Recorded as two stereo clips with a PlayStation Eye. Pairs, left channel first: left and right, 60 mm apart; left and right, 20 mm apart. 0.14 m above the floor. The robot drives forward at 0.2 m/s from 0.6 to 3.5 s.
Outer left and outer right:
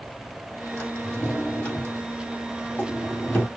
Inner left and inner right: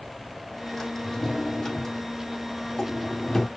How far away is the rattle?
No rattle in this recording.